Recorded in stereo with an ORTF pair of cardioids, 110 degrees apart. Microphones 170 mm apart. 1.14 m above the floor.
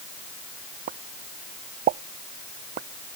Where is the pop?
65° right.